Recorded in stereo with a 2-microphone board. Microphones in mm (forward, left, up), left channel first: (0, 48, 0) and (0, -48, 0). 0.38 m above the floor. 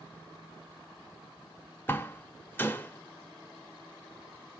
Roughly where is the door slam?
Left.